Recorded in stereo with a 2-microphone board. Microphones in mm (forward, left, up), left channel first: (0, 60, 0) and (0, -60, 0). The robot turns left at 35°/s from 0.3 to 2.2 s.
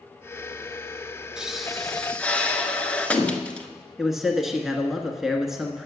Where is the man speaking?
5° right (ahead or behind), 1.2 m.